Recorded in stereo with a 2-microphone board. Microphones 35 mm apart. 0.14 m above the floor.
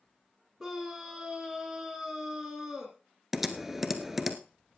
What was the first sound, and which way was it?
A scream, 15° right (ahead or behind).